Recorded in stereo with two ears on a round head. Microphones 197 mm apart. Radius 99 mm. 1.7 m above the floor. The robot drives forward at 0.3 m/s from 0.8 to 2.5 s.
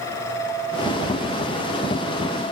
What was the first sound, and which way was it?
Only background noise.